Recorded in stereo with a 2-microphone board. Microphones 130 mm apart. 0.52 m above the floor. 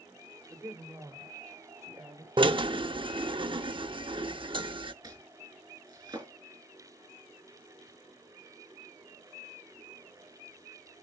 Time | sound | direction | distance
0.5 | a woman speaking | 25° right (ahead or behind) | 1.9 m
2.4 | a drill | 40° right (ahead or behind) | 0.7 m
5.0 | chopping | 25° right (ahead or behind) | 4.5 m